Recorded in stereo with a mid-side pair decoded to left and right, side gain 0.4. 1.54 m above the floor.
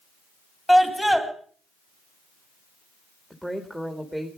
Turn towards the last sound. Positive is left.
turn(degrees=0)